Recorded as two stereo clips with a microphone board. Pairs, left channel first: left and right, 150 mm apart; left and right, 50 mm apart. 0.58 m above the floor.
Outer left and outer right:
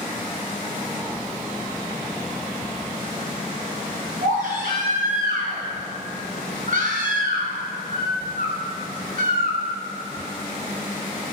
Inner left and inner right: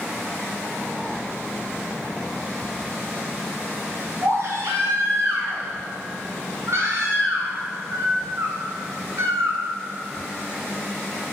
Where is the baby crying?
70° right (ahead or behind), 2.5 m.